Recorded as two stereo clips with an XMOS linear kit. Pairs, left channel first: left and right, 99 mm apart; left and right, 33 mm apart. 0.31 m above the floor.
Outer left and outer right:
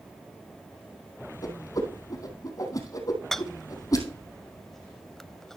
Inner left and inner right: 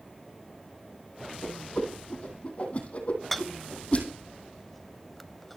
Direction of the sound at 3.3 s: 5° left (ahead or behind).